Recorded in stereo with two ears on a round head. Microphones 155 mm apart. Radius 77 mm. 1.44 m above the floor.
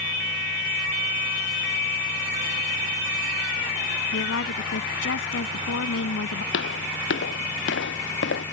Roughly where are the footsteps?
Left.